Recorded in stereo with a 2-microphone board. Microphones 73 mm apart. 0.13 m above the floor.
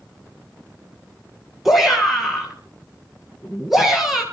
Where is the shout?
5° right (ahead or behind), 2 m.